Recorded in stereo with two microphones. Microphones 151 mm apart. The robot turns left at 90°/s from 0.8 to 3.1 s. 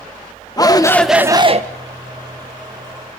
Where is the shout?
25° left, 1.6 m; by 1.6 s 50° right, 1.6 m.